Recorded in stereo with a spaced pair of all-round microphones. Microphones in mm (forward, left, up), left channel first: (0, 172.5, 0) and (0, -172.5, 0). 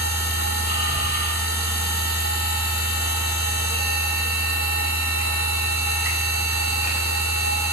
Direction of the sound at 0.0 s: 30° left (ahead or behind).